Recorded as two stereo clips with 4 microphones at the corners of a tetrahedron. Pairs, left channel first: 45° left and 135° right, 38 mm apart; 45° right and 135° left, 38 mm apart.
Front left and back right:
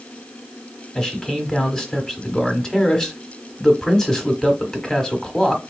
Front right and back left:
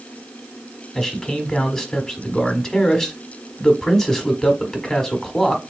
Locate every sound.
0.9 s a man speaking: 10° left, 1.0 m